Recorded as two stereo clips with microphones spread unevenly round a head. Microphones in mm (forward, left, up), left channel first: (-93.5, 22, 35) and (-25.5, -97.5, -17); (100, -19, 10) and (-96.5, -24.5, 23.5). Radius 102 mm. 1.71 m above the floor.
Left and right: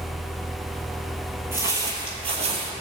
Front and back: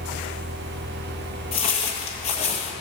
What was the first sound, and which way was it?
Footsteps, 45° left.